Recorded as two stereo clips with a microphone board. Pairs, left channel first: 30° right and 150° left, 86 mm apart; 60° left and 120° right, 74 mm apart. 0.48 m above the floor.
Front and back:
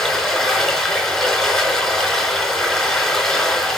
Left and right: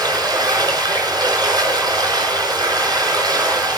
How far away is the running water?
About 5 m.